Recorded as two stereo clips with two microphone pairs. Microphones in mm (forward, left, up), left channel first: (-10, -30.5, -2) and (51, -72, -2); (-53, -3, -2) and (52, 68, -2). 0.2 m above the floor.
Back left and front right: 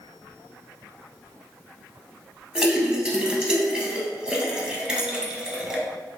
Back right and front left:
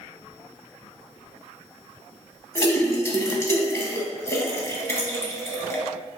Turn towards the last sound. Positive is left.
turn(degrees=-95)